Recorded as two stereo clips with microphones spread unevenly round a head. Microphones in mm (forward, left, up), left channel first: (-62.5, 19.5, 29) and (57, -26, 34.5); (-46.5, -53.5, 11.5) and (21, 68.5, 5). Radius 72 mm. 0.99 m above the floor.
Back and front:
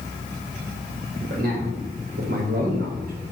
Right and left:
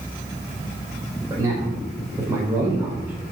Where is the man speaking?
10° right, 5 m; by 3.1 s 20° right, 4 m.